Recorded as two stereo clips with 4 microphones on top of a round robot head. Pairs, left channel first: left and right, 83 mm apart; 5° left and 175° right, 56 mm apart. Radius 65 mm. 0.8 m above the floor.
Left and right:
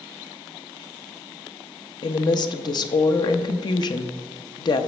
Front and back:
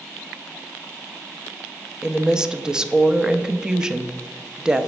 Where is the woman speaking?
105° left, 0.7 m.